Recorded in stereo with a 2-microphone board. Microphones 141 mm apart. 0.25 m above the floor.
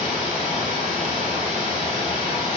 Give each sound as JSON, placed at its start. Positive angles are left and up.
{"t": 0.0, "sound": "running water", "side_deg": -65, "distance_m": 1.3}